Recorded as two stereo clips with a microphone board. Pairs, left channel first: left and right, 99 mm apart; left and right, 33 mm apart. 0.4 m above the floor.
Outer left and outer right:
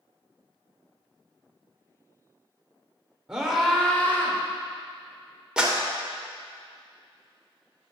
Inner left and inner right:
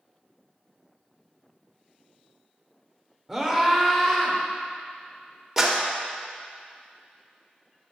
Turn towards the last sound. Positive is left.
turn(degrees=-10)  # may be behind; listen again after turning